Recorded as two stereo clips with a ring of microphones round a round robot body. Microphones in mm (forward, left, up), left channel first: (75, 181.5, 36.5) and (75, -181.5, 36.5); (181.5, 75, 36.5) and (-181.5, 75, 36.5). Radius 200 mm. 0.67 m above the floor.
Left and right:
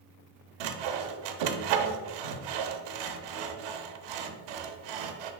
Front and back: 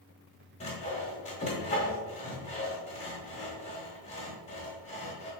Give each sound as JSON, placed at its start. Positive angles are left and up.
{"t": 0.6, "sound": "sawing", "azimuth_deg": -75, "distance_m": 0.6}